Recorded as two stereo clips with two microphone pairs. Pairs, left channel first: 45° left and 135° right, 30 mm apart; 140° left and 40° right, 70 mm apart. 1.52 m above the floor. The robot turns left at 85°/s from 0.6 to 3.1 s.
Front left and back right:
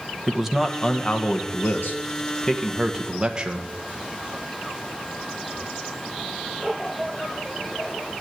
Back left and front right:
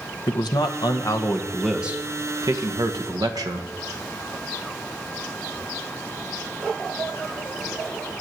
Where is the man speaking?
145° left, 1.4 m; by 3.7 s 70° right, 1.4 m.